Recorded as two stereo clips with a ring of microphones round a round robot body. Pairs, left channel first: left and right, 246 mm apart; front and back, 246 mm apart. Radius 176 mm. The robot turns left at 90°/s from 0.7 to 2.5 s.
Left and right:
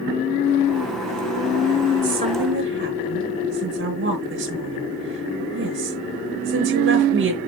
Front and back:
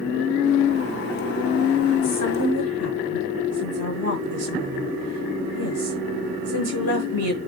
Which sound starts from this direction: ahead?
A woman speaking, at 2.0 s.